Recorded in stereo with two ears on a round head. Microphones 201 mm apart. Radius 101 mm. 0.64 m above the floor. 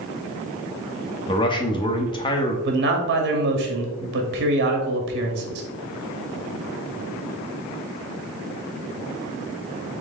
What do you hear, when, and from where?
1.3 s a man speaking: 20° left (ahead or behind), 0.7 m
2.6 s a man speaking: 50° right (ahead or behind), 0.9 m